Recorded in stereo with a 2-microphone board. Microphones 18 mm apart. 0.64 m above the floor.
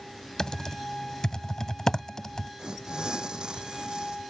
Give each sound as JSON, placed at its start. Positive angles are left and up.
{"t": 0.4, "sound": "typing on a keyboard", "side_deg": 40}
{"t": 2.6, "sound": "tearing paper", "side_deg": -55}